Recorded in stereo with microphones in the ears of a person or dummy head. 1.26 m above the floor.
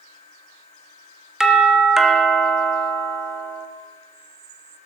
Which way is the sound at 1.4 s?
Centre (ahead or behind).